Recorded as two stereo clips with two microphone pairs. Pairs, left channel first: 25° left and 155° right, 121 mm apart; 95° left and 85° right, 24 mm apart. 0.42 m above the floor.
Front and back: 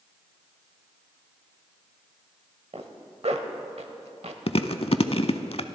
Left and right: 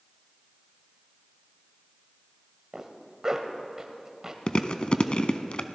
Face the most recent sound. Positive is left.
turn(degrees=50)